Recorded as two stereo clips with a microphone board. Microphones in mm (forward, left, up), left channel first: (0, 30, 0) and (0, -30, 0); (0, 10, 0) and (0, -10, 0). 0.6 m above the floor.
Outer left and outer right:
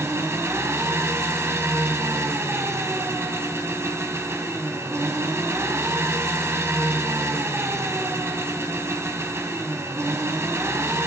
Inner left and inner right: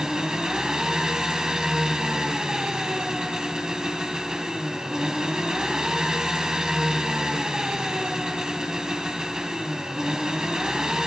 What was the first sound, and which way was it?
An engine running, 45° right (ahead or behind).